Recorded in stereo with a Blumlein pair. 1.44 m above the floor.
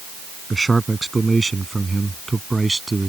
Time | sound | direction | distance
0.5 | a man speaking | 10° right | ?